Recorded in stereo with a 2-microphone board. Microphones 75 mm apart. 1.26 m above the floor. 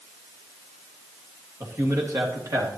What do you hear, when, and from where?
1.6 s a man speaking: 30° right (ahead or behind), 2 m; by 2.7 s 50° right (ahead or behind), 2.5 m